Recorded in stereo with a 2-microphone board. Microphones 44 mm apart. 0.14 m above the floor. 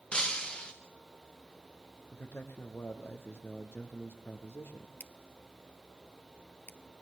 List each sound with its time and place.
0.1 s breaking glass: 20° left (ahead or behind), 4.5 m
2.1 s a man speaking: 75° left (ahead or behind), 5 m
5.0 s scissors: 55° left (ahead or behind), 1.4 m